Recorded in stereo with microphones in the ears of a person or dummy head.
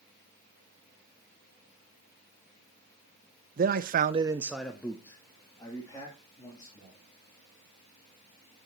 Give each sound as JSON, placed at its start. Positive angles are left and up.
{"t": 3.6, "sound": "a man speaking", "side_deg": -40, "distance_m": 0.9}